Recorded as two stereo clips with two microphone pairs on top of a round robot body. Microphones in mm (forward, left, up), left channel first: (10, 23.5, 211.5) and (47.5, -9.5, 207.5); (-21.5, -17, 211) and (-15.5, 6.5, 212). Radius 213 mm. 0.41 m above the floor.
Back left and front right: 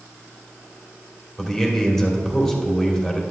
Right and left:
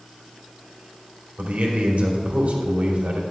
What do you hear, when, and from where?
1.4 s a man speaking: 60° left, 2.5 m